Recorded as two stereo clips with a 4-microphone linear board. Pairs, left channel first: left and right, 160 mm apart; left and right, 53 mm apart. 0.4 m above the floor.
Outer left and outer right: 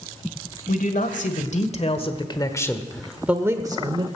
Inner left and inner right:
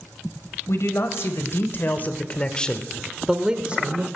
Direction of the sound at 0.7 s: 60° left (ahead or behind).